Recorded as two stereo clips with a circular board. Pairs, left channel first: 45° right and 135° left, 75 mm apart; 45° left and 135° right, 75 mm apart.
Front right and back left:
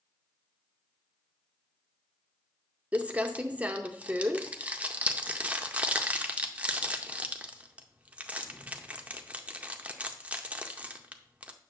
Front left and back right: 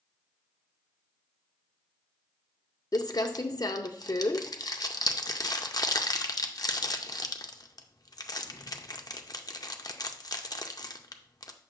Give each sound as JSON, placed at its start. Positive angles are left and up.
{"t": 2.9, "sound": "crumpling", "azimuth_deg": 65, "distance_m": 0.5}